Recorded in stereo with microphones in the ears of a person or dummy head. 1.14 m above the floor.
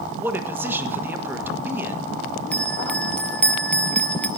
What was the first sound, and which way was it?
A man speaking, 10° right (ahead or behind).